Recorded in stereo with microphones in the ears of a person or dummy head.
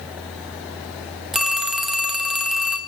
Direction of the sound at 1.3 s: Centre (ahead or behind).